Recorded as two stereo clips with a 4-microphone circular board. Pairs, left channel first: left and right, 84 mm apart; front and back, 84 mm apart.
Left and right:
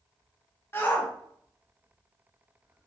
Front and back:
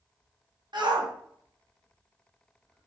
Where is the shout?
150° left, 1.2 m; by 2.9 s 160° right, 1.7 m.